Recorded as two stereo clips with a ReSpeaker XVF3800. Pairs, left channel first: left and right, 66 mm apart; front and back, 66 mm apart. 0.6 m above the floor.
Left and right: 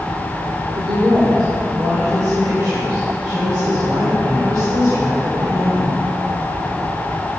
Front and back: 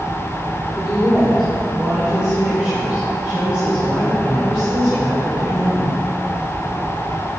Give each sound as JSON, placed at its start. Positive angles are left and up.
{"t": 0.8, "sound": "a woman speaking", "azimuth_deg": -95, "distance_m": 1.6}